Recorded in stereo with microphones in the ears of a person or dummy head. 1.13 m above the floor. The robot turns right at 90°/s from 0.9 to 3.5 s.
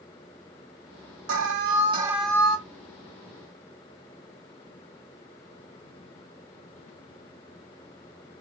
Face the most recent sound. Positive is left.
turn(degrees=115)